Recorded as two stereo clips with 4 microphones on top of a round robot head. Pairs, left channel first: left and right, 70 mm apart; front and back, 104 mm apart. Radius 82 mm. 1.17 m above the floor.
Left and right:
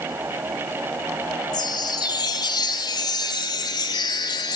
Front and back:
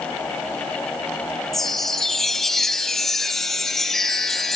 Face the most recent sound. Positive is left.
turn(degrees=85)